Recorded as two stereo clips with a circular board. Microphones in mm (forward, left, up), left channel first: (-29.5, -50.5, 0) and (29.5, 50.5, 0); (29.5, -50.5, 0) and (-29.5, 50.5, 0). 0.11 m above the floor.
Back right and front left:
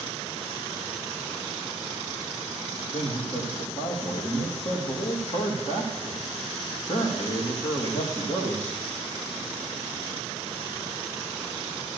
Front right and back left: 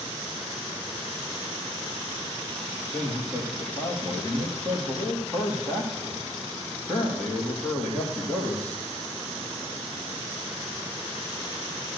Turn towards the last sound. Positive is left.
turn(degrees=-140)